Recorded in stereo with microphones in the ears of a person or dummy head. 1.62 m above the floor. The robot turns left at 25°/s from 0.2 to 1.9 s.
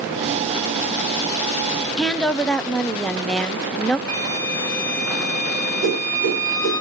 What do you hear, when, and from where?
2.0 s a woman speaking: 10° left (ahead or behind), 0.7 m
4.1 s a flute: 15° left (ahead or behind), 3.5 m
5.8 s a whoosh: 45° right (ahead or behind), 5.5 m